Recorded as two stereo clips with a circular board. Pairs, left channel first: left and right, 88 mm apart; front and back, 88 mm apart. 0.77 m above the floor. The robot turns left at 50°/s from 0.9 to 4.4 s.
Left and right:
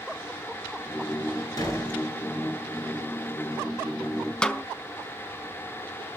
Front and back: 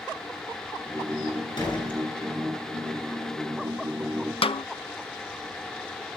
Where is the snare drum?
10° left, 0.7 m.